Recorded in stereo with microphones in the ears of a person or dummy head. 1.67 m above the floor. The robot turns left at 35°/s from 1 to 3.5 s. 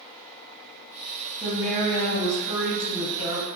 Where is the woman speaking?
160° left, 1.5 m; by 3.6 s 85° left, 1.5 m.